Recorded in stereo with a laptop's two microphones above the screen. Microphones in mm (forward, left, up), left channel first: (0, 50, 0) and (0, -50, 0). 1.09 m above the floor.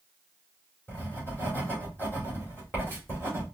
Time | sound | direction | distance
0.9 | writing | 20° left (ahead or behind) | 2.5 m